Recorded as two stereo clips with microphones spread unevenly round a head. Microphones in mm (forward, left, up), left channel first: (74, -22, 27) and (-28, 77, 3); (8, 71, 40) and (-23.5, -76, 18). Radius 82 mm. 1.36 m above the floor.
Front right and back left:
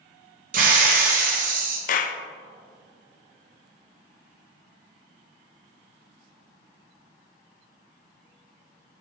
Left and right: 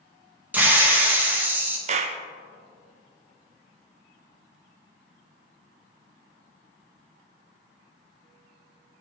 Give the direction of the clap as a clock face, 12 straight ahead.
2 o'clock.